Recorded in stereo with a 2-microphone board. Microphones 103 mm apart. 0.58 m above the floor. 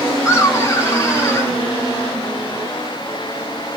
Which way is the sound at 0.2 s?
30° left (ahead or behind).